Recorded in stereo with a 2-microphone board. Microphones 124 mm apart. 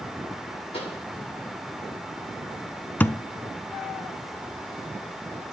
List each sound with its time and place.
0.7 s a pop: 55° left (ahead or behind), 6.5 m
3.0 s a thud: 15° left (ahead or behind), 0.6 m